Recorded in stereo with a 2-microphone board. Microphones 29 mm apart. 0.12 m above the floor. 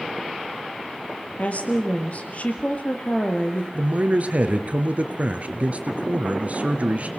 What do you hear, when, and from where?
1.4 s a woman speaking: 55° left (ahead or behind), 3 m
3.7 s a man speaking: 50° right (ahead or behind), 2 m